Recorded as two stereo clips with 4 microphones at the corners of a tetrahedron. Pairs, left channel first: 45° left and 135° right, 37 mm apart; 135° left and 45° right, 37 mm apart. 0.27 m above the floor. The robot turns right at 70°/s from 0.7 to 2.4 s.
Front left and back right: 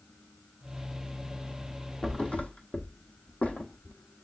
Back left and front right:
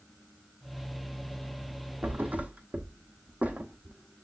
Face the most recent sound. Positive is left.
turn(degrees=-5)